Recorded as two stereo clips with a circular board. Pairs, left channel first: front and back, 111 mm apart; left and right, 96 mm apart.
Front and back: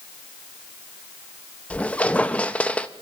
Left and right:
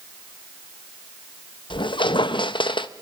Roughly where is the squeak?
Left.